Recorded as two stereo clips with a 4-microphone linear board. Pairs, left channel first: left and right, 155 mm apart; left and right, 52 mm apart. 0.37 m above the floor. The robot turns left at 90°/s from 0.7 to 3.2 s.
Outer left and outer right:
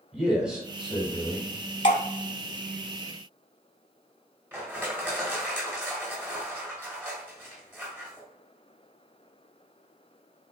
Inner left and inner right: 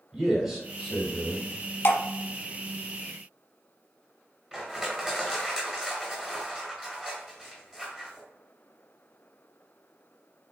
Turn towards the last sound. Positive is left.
turn(degrees=-15)  # may be behind; listen again after turning